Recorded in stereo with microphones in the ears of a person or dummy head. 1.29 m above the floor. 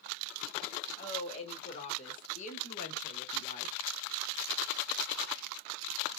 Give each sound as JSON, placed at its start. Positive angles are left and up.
{"t": 1.0, "sound": "a woman speaking", "side_deg": 30, "distance_m": 2.0}